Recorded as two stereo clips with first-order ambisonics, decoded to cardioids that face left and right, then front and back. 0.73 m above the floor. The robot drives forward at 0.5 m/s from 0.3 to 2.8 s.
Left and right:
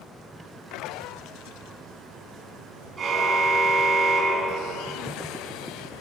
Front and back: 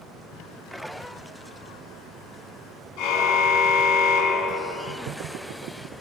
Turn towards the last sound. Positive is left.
turn(degrees=-20)